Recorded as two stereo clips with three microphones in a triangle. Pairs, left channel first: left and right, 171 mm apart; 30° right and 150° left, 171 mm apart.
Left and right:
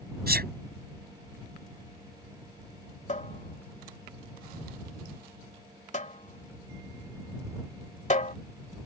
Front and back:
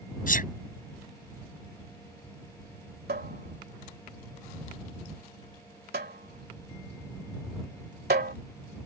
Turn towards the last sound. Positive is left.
turn(degrees=135)